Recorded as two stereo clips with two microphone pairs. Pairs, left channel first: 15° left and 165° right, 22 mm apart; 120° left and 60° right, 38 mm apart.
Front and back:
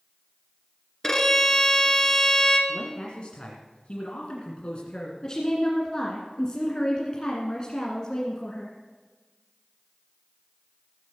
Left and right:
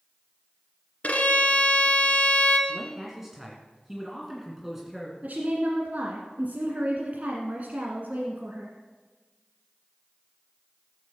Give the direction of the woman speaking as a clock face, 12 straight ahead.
1 o'clock.